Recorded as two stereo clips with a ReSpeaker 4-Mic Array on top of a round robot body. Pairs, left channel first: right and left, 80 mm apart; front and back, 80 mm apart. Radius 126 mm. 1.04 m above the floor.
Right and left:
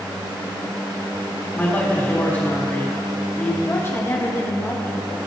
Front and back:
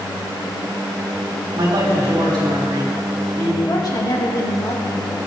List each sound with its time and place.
1.5 s a man speaking: 155° right, 4 m
3.7 s a woman speaking: 30° right, 2 m